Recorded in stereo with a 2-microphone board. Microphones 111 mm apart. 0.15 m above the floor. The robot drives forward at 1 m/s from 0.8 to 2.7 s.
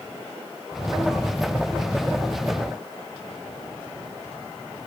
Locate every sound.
Only background noise.